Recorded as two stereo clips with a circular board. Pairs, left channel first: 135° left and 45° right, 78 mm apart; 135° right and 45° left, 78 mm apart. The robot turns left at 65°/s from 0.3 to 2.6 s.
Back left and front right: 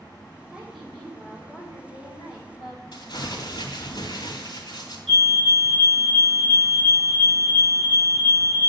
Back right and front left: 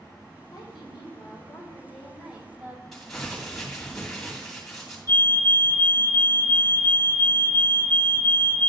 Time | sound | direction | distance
0.5 | a woman speaking | 125° right | 2.5 m
2.9 | crumpling | 140° left | 2.5 m
5.1 | a fire alarm | 155° right | 1.5 m